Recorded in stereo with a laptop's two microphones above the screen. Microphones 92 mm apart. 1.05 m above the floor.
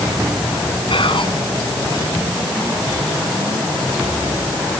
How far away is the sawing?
No sawing in this recording.